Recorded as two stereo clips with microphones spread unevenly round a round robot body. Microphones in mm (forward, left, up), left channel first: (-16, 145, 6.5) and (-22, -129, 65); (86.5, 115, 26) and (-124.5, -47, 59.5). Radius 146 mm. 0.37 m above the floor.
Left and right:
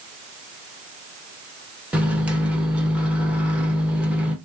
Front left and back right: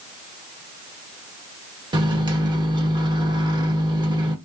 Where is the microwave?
155° left, 1.1 m.